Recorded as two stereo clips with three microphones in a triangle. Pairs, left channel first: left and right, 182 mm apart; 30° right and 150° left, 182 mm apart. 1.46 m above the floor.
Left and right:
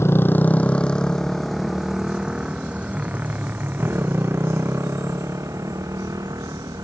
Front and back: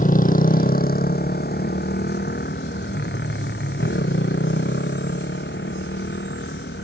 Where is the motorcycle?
15° left; by 6.8 s 20° right.